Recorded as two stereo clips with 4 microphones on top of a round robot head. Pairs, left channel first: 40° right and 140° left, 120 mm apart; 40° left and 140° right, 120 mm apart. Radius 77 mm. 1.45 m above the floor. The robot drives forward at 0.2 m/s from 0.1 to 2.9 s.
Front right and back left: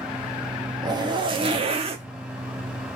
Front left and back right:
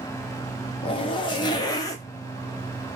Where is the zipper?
85° left, 0.7 m; by 2.0 s 105° left, 0.7 m.